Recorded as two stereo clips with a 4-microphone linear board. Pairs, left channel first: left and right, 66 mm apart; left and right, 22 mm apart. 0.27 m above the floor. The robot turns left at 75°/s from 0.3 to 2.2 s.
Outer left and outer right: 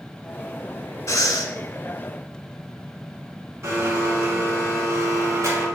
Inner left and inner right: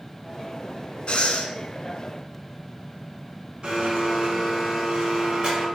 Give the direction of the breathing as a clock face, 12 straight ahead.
8 o'clock.